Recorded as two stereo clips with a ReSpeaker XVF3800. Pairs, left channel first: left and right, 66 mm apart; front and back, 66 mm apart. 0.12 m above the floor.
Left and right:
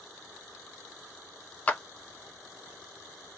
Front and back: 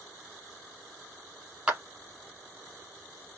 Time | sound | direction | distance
1.7 | a clap | 125° left | 1.0 m